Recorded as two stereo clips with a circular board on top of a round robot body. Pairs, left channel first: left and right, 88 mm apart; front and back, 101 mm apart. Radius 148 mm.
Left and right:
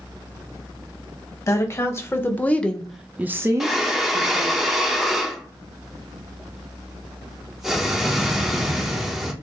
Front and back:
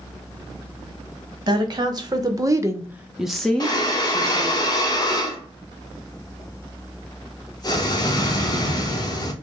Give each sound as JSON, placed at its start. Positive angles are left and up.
{"t": 1.5, "sound": "a woman speaking", "azimuth_deg": 140, "distance_m": 1.4}
{"t": 3.6, "sound": "breathing", "azimuth_deg": -5, "distance_m": 1.0}